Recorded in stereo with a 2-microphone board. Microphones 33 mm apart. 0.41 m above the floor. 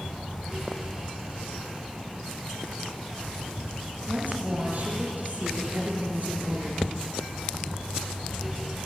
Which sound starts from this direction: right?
A woman speaking, at 4.1 s.